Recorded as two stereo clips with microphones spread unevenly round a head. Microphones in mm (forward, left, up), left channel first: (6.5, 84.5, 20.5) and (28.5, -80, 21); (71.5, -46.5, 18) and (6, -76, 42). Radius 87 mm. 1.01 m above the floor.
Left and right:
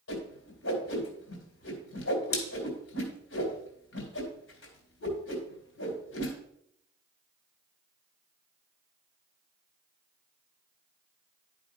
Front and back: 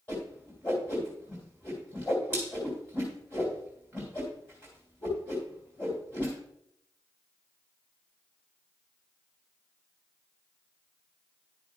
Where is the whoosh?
100° left, 3 m.